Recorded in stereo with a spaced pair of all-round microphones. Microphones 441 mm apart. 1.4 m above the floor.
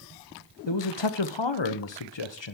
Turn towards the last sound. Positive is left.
turn(degrees=75)  # may be behind; listen again after turning